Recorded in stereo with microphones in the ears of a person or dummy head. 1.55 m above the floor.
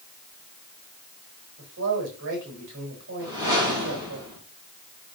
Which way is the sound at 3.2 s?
20° right (ahead or behind).